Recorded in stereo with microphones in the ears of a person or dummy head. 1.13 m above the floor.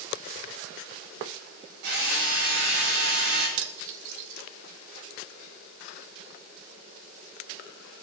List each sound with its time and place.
1.8 s a drill: 60° right (ahead or behind), 6 m
3.6 s cutlery clinking: 65° right (ahead or behind), 0.9 m